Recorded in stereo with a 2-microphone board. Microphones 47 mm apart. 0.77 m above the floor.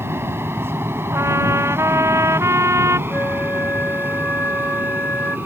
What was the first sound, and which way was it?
An aircraft, 60° right (ahead or behind).